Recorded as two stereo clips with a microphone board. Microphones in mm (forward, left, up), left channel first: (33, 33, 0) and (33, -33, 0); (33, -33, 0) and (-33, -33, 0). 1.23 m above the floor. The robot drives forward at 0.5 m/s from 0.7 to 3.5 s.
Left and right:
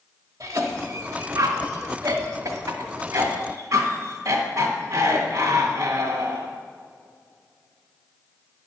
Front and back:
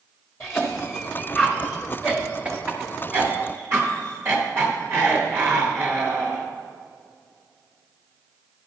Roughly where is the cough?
Ahead right.